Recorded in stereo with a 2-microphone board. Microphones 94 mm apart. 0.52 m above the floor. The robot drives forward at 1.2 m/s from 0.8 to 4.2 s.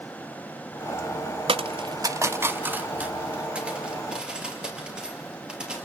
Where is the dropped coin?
75° right (ahead or behind), 0.6 m; by 5.9 s 10° right (ahead or behind), 3 m.